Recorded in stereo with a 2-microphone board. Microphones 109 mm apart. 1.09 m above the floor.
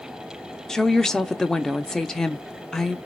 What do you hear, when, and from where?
0.7 s a woman speaking: 5° left (ahead or behind), 0.5 m